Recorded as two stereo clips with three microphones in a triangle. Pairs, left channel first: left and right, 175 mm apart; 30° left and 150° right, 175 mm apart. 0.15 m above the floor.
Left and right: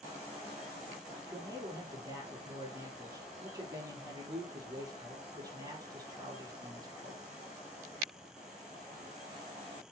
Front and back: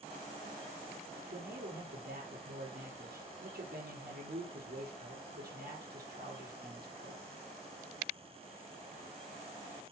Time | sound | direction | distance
1.3 | a man speaking | 155° right | 4.5 m